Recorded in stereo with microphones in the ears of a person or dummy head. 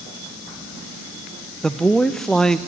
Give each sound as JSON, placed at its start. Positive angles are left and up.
{"t": 1.6, "sound": "a man speaking", "side_deg": 0, "distance_m": 0.8}